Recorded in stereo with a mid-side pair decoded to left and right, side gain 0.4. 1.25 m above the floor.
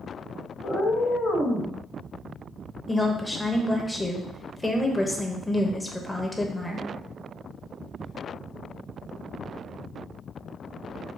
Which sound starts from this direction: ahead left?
A cat meowing, at 0.6 s.